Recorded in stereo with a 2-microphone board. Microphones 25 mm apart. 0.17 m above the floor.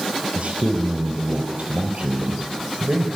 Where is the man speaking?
40° right (ahead or behind), 4 m.